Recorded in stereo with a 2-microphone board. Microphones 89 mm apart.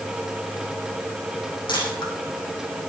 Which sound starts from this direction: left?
A camera shutter, at 1.7 s.